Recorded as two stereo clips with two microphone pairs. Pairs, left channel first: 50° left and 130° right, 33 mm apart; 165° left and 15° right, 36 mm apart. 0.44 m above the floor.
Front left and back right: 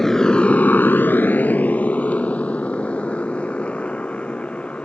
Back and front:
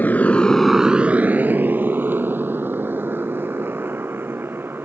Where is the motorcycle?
130° left; by 4.9 s 5° right.